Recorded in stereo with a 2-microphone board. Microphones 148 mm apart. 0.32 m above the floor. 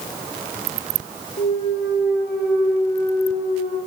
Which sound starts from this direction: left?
A clunk, at 1.4 s.